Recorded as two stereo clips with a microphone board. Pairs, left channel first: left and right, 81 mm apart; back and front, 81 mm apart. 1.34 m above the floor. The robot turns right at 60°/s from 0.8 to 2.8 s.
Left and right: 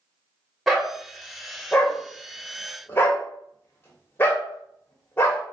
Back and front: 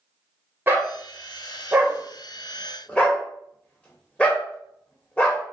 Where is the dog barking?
Straight ahead, 1.0 m; by 5.4 s 120° left, 1.0 m.